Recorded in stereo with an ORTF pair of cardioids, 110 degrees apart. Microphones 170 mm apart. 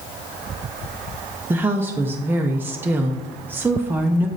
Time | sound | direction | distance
1.5 | a woman speaking | 15° right | 0.7 m